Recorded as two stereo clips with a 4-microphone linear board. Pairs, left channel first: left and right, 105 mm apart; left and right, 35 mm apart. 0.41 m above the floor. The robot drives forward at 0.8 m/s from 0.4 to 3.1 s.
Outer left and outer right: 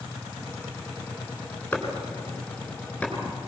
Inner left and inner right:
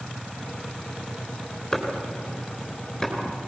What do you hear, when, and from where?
1.7 s chopping: 15° left (ahead or behind), 3 m; by 3.1 s 10° left (ahead or behind), 4.5 m